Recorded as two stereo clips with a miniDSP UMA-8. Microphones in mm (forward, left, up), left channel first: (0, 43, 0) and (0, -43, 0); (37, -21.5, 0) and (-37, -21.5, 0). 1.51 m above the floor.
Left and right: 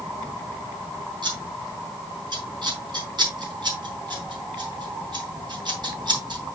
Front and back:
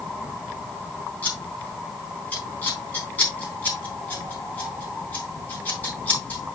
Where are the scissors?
65° right, 3.5 m.